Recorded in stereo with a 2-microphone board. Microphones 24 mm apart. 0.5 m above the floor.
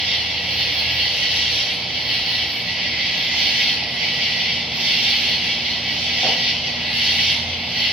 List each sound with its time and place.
0.0 s an insect: 70° right (ahead or behind), 9 m